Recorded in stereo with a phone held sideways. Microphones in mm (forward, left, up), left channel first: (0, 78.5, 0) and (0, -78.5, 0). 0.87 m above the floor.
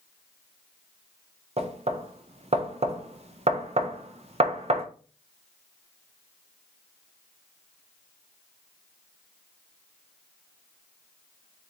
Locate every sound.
1.6 s knocking: 45° right (ahead or behind), 0.5 m